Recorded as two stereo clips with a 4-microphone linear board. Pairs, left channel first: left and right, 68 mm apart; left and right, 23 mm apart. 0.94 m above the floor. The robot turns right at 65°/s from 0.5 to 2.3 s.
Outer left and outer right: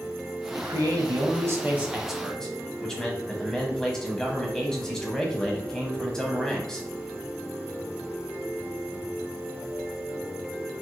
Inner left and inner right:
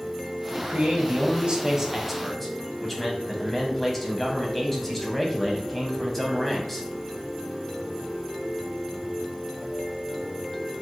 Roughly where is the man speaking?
Right.